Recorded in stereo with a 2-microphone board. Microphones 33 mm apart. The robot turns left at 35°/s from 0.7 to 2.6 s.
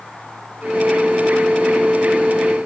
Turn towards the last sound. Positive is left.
No sound to turn to.